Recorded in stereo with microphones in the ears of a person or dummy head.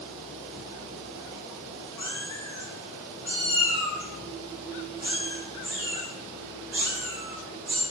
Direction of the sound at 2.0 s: 20° left (ahead or behind).